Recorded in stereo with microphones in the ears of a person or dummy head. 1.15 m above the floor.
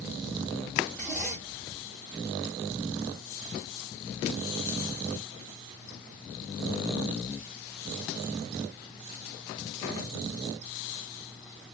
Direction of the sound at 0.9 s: 10° left (ahead or behind).